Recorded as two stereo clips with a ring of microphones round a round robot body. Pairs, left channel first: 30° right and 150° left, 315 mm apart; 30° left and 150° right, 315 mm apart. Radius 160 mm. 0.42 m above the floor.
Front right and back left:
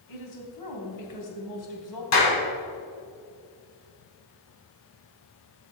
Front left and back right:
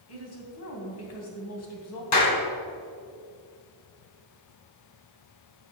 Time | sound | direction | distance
0.1 | a woman speaking | 10° right | 3 m
2.1 | a clap | 5° left | 3.5 m